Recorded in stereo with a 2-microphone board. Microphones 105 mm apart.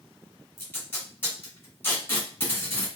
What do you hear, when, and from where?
0.6 s tape being pulled: 25° left (ahead or behind), 1.5 m